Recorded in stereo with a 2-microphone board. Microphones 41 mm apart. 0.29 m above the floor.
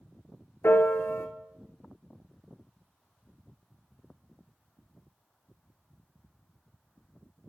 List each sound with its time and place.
0.6 s a piano: 75° left (ahead or behind), 0.7 m